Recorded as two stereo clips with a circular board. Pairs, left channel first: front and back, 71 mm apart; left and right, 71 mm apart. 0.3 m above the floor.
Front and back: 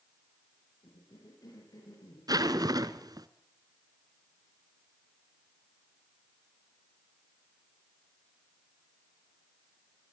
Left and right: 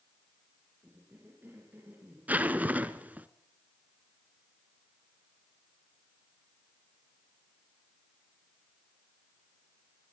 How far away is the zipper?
About 1.2 m.